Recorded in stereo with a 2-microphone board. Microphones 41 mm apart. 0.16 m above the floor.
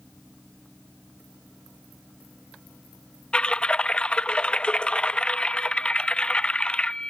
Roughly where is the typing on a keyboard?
Left.